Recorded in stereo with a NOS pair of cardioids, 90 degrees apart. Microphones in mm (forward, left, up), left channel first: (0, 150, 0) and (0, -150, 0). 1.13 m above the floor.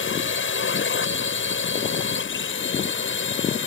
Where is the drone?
40° left.